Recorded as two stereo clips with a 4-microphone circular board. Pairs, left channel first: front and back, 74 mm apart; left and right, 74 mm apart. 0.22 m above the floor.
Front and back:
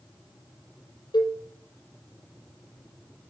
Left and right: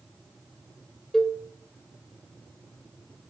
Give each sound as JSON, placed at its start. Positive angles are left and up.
{"t": 1.1, "sound": "a cowbell", "azimuth_deg": 5, "distance_m": 1.1}